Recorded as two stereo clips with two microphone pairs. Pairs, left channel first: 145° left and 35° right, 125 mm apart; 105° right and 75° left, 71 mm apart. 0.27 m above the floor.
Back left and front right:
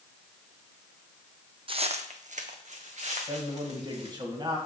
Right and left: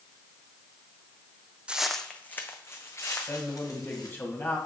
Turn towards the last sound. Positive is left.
turn(degrees=-65)